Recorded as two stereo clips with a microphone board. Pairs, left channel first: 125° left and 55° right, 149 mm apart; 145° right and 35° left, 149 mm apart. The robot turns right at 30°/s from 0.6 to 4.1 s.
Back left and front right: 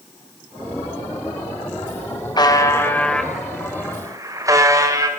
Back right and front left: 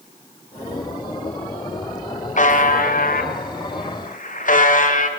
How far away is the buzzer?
About 2.5 m.